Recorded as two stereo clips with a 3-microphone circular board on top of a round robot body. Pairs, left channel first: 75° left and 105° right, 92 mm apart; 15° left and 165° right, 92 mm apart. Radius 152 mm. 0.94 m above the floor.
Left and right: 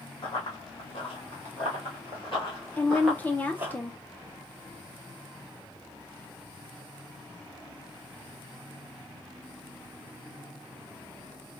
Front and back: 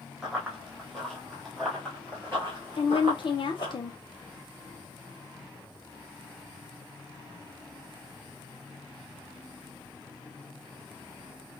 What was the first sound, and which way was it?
Running footsteps, 110° left.